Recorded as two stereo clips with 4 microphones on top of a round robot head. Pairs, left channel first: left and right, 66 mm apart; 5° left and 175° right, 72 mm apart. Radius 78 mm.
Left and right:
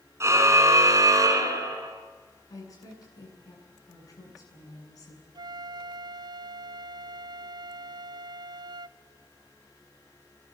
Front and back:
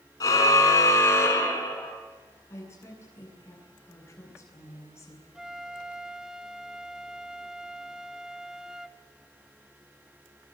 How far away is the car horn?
About 3.5 m.